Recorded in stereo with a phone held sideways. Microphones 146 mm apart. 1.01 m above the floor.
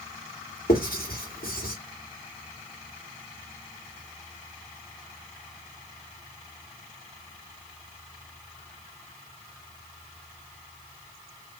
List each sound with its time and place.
0.7 s writing: 80° left, 2.5 m